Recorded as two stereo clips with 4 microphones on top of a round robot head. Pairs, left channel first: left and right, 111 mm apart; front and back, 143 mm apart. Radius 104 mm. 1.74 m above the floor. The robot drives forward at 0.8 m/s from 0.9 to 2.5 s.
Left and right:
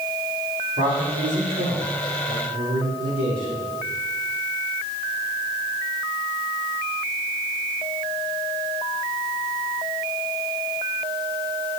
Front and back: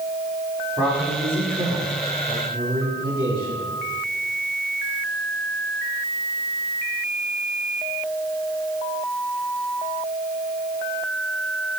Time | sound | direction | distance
0.8 | a man speaking | 105° right | 4.5 m